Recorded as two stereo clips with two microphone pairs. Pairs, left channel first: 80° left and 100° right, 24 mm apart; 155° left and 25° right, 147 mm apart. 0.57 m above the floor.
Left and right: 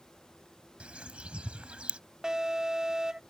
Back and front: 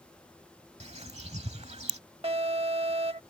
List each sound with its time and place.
0.8 s a bird: 65° right
2.2 s an alarm: 50° right